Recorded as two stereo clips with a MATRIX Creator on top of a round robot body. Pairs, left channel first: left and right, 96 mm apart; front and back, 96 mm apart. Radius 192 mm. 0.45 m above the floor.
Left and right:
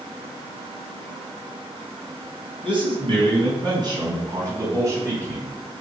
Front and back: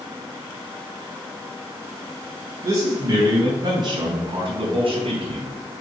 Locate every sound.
2.6 s a man speaking: 120° right, 5 m; by 5.5 s 155° right, 4 m